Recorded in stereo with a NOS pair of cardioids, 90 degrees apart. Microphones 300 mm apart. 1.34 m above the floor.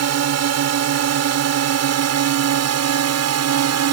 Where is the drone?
65° right.